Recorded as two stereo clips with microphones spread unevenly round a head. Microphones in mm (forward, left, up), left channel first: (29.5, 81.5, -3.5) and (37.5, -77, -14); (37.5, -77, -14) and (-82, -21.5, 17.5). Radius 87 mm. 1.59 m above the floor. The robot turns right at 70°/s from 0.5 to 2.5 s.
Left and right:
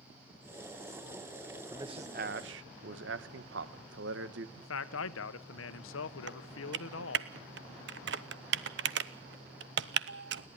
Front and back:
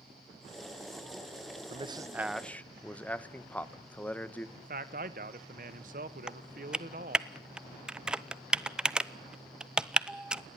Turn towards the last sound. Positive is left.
turn(degrees=-125)